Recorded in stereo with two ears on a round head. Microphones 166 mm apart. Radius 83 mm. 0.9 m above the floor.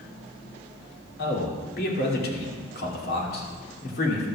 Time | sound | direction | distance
1.2 | a man speaking | 60° left (ahead or behind) | 2.5 m